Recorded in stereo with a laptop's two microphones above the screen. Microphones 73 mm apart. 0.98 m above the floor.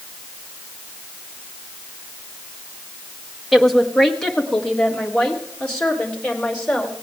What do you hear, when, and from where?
3.5 s a woman speaking: centre (ahead or behind), 1.1 m; by 7.0 s 15° left (ahead or behind), 3.5 m